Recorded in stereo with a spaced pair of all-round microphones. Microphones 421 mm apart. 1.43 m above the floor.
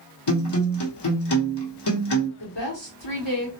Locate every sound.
0.3 s a guitar: 70° left (ahead or behind), 0.9 m
2.4 s a woman speaking: 65° left (ahead or behind), 0.9 m